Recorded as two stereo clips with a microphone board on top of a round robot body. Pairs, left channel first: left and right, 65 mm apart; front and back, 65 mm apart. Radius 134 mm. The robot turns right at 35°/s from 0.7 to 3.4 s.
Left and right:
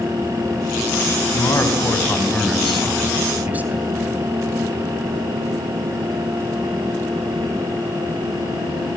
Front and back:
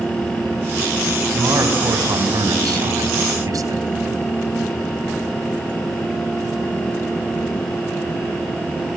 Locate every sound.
1.3 s a man speaking: 130° left, 3.5 m; by 3.8 s 155° right, 3.5 m